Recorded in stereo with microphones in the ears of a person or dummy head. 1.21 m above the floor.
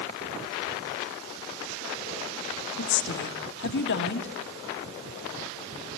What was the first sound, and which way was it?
A woman speaking, 60° left (ahead or behind).